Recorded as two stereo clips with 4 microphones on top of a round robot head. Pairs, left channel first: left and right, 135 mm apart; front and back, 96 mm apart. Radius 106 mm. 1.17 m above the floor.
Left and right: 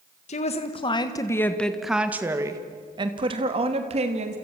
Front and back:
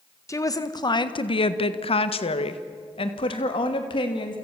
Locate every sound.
0.3 s a woman speaking: 55° left, 1.7 m; by 4.4 s 45° right, 3 m